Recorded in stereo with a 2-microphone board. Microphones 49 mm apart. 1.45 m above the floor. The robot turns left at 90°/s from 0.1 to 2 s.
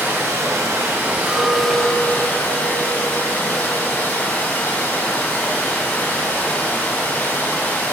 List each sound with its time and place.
0.0 s running water: 40° right, 0.9 m; by 8.0 s 150° left, 0.9 m
1.3 s a clink: 120° right, 1.6 m; by 4.3 s 175° left, 1.6 m